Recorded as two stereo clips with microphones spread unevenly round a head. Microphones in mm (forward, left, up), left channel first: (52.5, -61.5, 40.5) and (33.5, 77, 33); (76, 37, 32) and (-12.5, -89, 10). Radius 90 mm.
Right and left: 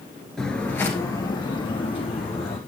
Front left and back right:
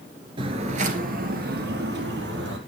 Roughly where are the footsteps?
Behind.